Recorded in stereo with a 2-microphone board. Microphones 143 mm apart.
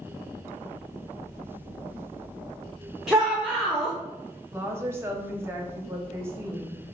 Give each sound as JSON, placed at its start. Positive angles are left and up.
{"t": 3.1, "sound": "a shout", "side_deg": -5, "distance_m": 0.5}
{"t": 4.5, "sound": "a woman speaking", "side_deg": -15, "distance_m": 0.6}